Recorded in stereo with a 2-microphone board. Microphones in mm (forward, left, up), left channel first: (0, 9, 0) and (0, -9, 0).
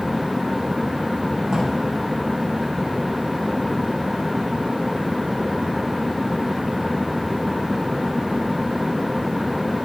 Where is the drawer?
35° right (ahead or behind), 6.5 m.